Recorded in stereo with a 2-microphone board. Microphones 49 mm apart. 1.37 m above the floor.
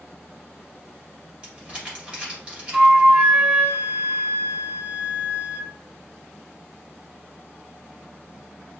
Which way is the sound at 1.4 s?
25° right (ahead or behind).